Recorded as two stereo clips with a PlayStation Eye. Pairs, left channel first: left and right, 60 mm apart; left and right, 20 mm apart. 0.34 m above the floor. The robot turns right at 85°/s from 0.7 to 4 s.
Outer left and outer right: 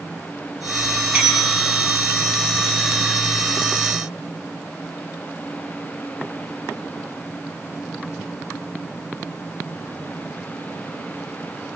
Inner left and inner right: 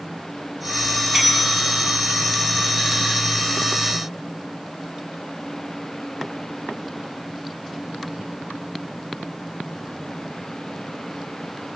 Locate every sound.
1.1 s a bell: 30° right, 2.5 m; by 1.9 s 35° left, 2.5 m